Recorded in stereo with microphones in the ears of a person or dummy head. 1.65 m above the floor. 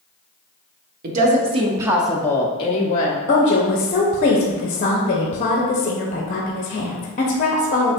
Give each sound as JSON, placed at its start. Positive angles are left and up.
{"t": 1.0, "sound": "a woman speaking", "side_deg": -45, "distance_m": 0.8}
{"t": 3.3, "sound": "a woman speaking", "side_deg": 40, "distance_m": 0.6}